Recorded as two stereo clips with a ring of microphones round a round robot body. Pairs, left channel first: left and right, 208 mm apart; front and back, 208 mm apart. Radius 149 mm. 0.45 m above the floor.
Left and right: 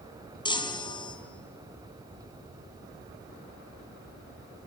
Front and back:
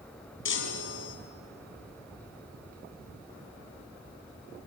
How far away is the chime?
About 3 m.